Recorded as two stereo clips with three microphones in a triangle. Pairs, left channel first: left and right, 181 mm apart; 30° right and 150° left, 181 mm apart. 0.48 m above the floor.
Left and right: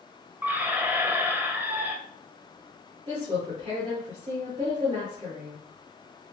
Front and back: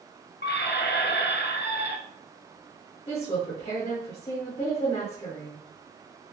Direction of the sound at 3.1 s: 65° right.